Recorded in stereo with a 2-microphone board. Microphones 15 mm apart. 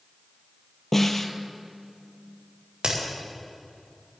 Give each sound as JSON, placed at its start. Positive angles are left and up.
{"t": 0.9, "sound": "a snare drum", "side_deg": 25, "distance_m": 1.1}
{"t": 2.8, "sound": "a crack", "side_deg": -75, "distance_m": 5.0}